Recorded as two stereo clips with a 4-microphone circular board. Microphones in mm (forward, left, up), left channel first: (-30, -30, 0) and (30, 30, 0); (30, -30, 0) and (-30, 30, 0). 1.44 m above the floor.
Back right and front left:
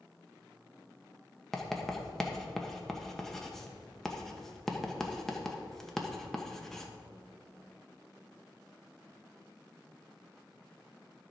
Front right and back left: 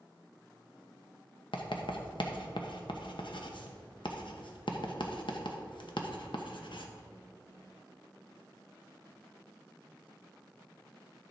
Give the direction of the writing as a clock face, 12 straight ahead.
2 o'clock.